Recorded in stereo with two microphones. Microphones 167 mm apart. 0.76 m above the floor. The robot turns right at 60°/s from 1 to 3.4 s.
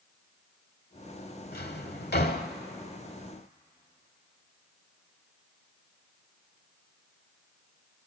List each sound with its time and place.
1.5 s a drawer: 60° left (ahead or behind), 1.1 m; by 2.5 s 55° left (ahead or behind), 1.1 m